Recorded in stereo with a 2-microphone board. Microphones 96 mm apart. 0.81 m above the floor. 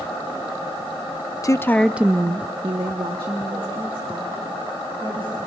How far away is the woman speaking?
About 0.7 m.